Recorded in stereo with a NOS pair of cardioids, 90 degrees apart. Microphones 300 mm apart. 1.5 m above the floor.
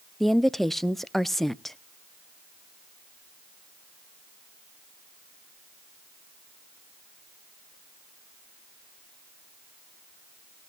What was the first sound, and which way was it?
A woman speaking, straight ahead.